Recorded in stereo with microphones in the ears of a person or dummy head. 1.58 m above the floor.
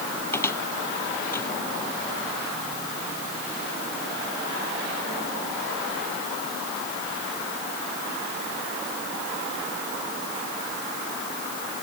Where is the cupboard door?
20° left (ahead or behind).